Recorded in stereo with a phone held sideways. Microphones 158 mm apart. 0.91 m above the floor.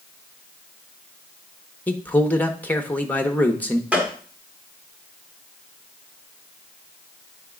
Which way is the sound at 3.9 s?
10° right (ahead or behind).